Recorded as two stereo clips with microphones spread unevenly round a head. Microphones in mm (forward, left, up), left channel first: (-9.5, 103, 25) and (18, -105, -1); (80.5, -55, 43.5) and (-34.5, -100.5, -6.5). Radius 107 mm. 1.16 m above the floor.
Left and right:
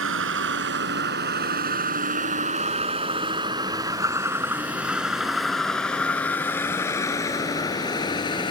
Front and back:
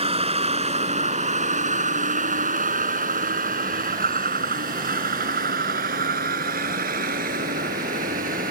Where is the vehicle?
115° right; by 8.5 s 165° left.